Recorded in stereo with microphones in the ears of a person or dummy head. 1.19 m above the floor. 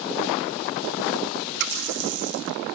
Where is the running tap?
60° right (ahead or behind), 1.1 m.